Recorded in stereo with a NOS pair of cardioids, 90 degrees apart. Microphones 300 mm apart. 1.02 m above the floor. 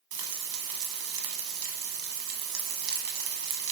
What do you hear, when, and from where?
0.1 s frying: 65° right, 0.8 m